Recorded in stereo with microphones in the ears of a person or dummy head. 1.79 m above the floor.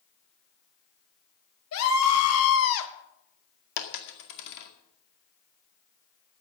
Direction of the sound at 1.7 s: 85° left.